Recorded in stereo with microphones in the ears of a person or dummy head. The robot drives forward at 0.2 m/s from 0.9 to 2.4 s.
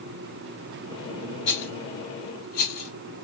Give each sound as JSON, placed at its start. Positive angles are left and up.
{"t": 1.5, "sound": "a rattle", "side_deg": 50, "distance_m": 0.8}